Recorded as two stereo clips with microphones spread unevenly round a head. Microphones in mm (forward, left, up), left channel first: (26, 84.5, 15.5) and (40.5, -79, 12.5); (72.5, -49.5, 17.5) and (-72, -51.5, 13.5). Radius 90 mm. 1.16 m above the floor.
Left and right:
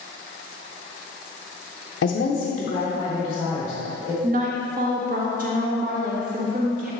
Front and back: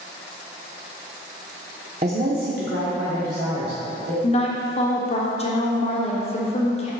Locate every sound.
2.0 s a woman speaking: 125° left, 0.5 m; by 4.1 s 170° left, 1.9 m
4.2 s a woman speaking: 45° right, 1.4 m